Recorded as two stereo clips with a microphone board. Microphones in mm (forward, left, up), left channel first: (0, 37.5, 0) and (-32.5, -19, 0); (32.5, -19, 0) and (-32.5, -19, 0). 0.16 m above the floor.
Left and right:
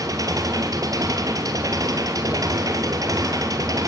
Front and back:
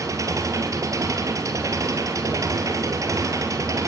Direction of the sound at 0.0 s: 145° right.